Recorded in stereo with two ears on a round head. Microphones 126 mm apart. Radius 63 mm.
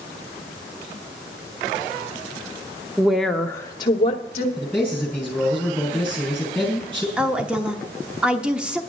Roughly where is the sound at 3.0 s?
Centre.